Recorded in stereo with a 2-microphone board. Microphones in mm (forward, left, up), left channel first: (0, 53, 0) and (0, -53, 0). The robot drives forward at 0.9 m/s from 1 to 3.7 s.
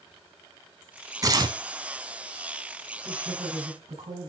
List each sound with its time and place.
1.2 s tearing paper: 35° right (ahead or behind), 1.2 m; by 1.6 s 45° right (ahead or behind), 1.0 m
3.0 s a woman speaking: 65° right (ahead or behind), 4.5 m; by 4.3 s 60° right (ahead or behind), 5 m